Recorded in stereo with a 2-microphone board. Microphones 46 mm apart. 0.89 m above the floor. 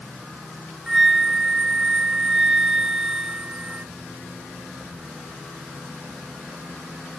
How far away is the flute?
About 0.5 m.